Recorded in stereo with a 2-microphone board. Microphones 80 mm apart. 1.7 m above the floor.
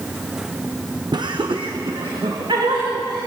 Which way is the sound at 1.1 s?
60° right (ahead or behind).